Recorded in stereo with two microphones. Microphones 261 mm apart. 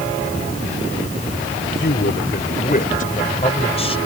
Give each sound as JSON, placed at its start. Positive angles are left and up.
{"t": 1.8, "sound": "a man speaking", "side_deg": 45}